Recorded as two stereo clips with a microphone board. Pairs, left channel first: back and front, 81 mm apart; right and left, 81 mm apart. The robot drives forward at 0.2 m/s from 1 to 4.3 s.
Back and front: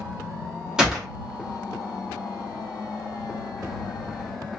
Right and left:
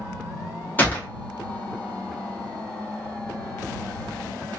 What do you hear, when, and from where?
0.8 s a gunshot: 70° right, 0.9 m